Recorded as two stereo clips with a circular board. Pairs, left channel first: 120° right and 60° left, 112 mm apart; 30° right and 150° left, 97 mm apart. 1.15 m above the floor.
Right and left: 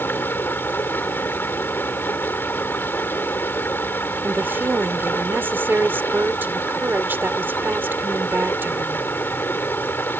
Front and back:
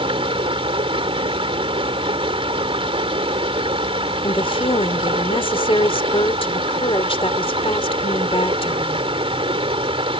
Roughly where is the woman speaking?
Ahead.